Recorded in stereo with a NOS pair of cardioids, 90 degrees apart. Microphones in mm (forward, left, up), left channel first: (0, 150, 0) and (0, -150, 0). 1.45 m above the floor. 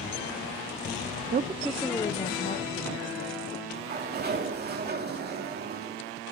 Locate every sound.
1.3 s a woman speaking: 35° right, 0.5 m; by 3.5 s 45° left, 1.8 m
3.7 s a sliding door: 35° right, 2.5 m